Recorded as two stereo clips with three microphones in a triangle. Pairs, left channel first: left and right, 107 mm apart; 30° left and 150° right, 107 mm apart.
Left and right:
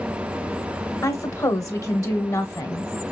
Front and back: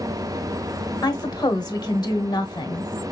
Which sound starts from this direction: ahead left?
A woman speaking, at 1.0 s.